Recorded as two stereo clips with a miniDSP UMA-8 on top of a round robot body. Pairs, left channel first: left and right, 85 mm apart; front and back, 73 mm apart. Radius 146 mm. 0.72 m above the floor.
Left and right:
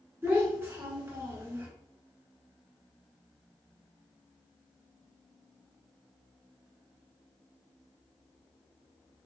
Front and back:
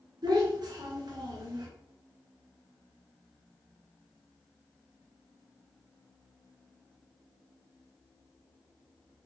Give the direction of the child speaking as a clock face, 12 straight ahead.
5 o'clock.